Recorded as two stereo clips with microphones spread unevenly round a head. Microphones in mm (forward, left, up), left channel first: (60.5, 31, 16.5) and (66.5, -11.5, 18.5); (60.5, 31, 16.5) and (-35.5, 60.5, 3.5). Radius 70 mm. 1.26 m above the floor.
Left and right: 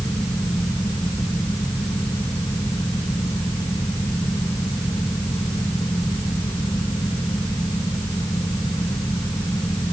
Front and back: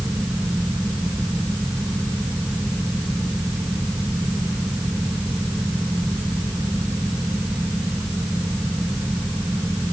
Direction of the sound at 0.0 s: 85° left.